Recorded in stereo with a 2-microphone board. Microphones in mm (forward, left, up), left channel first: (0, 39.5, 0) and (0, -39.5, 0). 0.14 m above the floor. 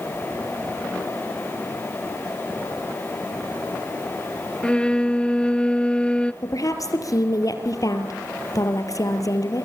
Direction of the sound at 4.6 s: 10° left (ahead or behind).